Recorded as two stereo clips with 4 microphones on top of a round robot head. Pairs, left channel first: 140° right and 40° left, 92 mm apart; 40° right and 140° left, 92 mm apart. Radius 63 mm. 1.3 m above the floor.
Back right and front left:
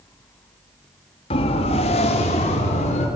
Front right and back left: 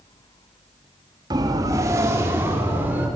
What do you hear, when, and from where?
1.3 s a siren: 170° right, 2 m; by 3.1 s 150° right, 4 m